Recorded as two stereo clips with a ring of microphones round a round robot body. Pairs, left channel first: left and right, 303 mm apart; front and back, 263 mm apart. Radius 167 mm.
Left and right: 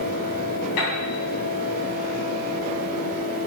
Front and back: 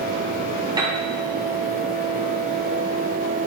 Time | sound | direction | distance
0.8 | a piano | 105° left | 3 m